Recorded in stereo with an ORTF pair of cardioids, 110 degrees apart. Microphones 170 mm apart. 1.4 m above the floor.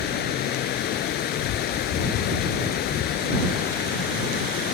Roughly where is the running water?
Left.